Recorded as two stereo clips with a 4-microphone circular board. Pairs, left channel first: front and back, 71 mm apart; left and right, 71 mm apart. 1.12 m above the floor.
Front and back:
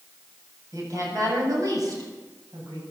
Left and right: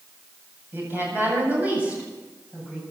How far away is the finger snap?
No finger snap in this recording.